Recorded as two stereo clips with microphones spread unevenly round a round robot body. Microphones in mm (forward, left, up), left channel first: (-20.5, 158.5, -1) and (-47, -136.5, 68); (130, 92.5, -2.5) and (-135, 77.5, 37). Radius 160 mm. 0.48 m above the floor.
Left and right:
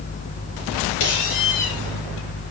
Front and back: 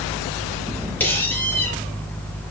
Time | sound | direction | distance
1.0 | a squeak | 85° left | 5.5 m